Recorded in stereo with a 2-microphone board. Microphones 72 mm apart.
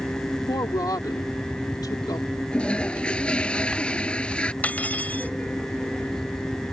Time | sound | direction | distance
0.5 | a woman speaking | 65° left (ahead or behind) | ?
2.5 | a toilet flushing | 15° left (ahead or behind) | ?
4.6 | cutlery clinking | 25° left (ahead or behind) | ?